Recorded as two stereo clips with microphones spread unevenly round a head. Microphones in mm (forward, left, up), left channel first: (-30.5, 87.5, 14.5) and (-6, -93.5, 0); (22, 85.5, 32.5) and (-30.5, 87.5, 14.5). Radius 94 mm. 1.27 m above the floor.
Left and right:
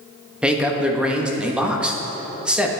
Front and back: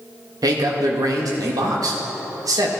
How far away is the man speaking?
About 1.3 m.